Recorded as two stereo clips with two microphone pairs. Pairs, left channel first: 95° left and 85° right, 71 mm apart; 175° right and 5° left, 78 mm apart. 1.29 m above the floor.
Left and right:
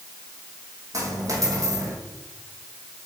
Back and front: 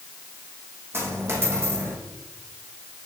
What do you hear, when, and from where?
0.9 s a dropped coin: 50° right, 3 m